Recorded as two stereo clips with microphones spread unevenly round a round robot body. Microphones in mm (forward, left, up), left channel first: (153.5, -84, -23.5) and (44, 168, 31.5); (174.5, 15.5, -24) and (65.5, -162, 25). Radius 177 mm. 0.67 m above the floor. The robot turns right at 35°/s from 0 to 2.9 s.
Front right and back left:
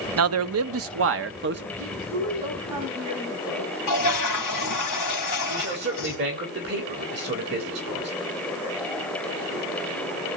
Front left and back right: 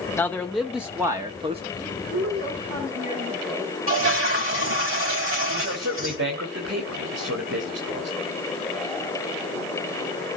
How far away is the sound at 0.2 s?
About 0.8 m.